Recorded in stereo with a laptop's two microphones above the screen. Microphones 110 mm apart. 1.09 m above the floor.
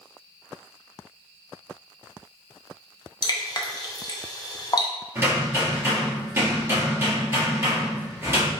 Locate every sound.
3.2 s dripping: 35° left (ahead or behind), 0.6 m
5.2 s hammering: 25° right (ahead or behind), 2 m